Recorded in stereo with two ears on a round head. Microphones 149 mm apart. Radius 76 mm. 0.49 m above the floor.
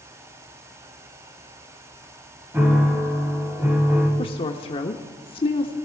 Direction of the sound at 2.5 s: 15° right (ahead or behind).